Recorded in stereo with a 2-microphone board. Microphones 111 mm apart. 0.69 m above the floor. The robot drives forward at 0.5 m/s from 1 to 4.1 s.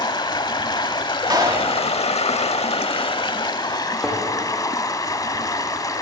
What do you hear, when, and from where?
0.0 s running water: 40° left (ahead or behind), 0.9 m; by 6.0 s 35° left (ahead or behind), 1.2 m
1.3 s a clap: 35° right (ahead or behind), 1.3 m; by 1.8 s 30° right (ahead or behind), 1.4 m
4.0 s a thud: 5° right (ahead or behind), 6.5 m